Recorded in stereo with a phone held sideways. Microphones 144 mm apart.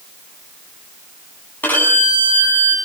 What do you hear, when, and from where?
1.6 s a violin: 10° left (ahead or behind), 8.5 m